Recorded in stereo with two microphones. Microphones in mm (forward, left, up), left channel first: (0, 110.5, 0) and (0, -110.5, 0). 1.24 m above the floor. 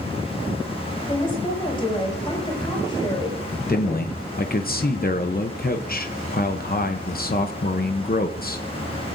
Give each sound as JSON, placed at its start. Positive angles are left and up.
{"t": 1.1, "sound": "a woman speaking", "side_deg": 20, "distance_m": 7.5}
{"t": 3.7, "sound": "a man speaking", "side_deg": 45, "distance_m": 0.8}